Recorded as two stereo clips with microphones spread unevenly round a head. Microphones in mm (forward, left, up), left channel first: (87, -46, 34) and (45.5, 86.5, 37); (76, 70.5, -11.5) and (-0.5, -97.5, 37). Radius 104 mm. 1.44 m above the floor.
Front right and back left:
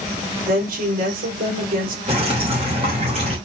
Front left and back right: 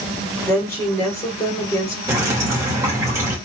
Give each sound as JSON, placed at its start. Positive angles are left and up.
{"t": 0.5, "sound": "a woman speaking", "azimuth_deg": 145, "distance_m": 4.5}
{"t": 2.1, "sound": "dripping", "azimuth_deg": 170, "distance_m": 3.0}